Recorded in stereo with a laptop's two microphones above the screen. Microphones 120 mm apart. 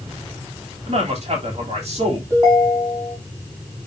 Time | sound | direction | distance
0.9 | a man speaking | 65° right (ahead or behind) | 3.5 m
2.3 | a ringtone | 25° right (ahead or behind) | 5.5 m